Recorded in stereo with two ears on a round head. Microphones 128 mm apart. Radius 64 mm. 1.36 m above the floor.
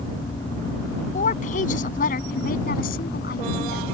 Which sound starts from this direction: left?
A woman speaking, at 1.1 s.